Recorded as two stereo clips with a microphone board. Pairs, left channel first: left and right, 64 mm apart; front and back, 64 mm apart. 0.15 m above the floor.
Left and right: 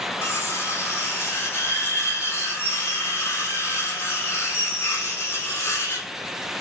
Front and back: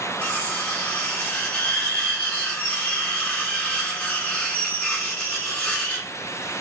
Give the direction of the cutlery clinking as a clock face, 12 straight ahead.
10 o'clock.